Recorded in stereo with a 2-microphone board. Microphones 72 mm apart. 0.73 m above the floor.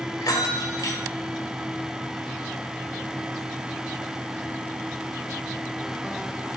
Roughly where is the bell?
Left.